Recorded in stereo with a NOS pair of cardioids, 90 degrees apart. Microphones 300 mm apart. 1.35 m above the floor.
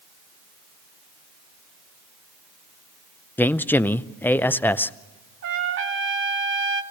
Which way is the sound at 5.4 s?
45° right.